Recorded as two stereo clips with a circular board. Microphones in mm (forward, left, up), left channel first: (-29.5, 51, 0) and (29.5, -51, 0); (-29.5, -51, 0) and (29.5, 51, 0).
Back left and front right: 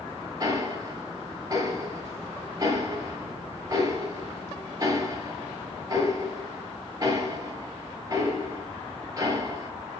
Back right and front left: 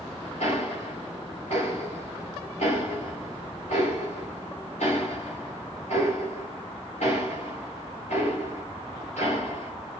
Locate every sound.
0.4 s ticking: 120° right, 5 m